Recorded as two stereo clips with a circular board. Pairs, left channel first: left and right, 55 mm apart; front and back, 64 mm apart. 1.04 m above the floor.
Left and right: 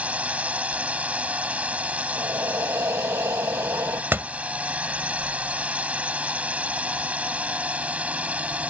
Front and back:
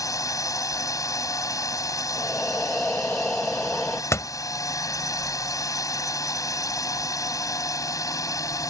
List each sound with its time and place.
0.0 s a drone: 25° right
2.1 s breathing: 75° right
4.1 s a door slam: 40° right